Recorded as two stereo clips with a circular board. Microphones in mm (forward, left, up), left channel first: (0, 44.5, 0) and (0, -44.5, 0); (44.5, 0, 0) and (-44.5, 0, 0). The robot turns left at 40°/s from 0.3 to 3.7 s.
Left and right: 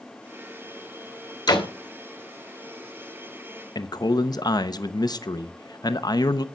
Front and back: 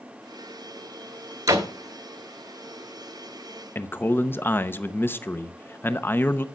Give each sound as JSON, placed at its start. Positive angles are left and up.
{"t": 1.5, "sound": "a door slam", "azimuth_deg": 130, "distance_m": 1.9}
{"t": 3.8, "sound": "a man speaking", "azimuth_deg": 60, "distance_m": 0.8}